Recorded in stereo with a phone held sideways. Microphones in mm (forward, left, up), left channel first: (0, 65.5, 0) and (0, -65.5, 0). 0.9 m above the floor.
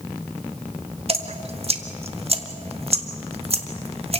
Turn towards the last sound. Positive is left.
turn(degrees=-50)  # may be behind; listen again after turning